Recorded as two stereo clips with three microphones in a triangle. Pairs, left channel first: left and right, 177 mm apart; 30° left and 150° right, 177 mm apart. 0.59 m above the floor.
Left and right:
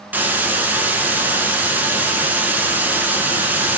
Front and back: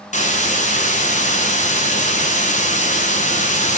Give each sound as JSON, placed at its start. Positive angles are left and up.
{"t": 0.1, "sound": "a hiss", "azimuth_deg": -10, "distance_m": 1.0}